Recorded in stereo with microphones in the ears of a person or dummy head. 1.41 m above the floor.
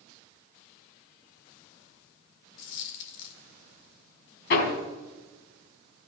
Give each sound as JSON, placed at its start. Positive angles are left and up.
{"t": 2.6, "sound": "a dropped coin", "side_deg": 60, "distance_m": 1.9}
{"t": 4.5, "sound": "hammering", "side_deg": 60, "distance_m": 4.0}